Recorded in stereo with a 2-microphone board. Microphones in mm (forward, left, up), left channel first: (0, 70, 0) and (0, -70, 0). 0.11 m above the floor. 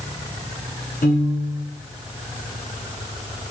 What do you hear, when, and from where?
1.0 s a piano: 80° left, 6 m